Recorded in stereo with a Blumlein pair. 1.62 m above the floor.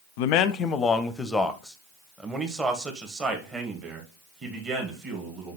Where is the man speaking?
50° left, 0.7 m; by 5.6 s 25° right, 3 m.